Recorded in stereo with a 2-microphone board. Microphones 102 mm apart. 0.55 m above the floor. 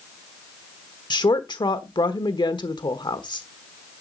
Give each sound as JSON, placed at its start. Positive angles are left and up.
{"t": 1.1, "sound": "a woman speaking", "side_deg": 50, "distance_m": 1.2}